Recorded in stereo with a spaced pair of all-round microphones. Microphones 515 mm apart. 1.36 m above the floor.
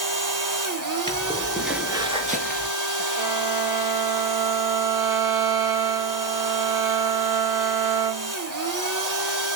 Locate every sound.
0.0 s a machine running: 35° right (ahead or behind), 1.1 m
1.1 s footsteps: 10° left (ahead or behind), 1.5 m; by 2.7 s 20° right (ahead or behind), 1.5 m
3.2 s a violin: 60° right (ahead or behind), 1.7 m